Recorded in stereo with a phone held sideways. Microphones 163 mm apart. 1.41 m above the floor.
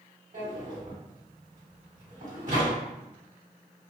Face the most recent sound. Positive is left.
turn(degrees=-55)  # may be behind; listen again after turning